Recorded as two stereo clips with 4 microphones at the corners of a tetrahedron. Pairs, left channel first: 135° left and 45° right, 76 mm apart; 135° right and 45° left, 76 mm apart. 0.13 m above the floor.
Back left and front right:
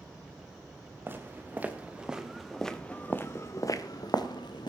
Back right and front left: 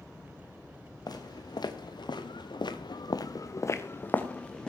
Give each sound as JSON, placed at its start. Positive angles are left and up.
{"t": 1.1, "sound": "footsteps", "azimuth_deg": -110, "distance_m": 3.0}